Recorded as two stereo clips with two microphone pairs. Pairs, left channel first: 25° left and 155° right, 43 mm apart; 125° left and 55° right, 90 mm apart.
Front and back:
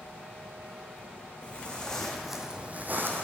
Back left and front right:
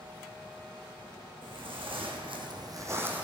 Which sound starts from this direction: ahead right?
Footsteps, at 1.4 s.